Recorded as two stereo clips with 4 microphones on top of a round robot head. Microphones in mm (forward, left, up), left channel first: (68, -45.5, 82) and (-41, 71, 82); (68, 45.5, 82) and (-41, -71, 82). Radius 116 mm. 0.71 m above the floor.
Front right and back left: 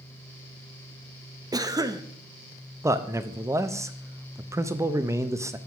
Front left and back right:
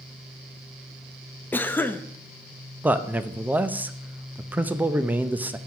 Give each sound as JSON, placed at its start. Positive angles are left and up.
{"t": 1.5, "sound": "a cough", "azimuth_deg": 110, "distance_m": 0.5}
{"t": 2.8, "sound": "a man speaking", "azimuth_deg": 165, "distance_m": 0.5}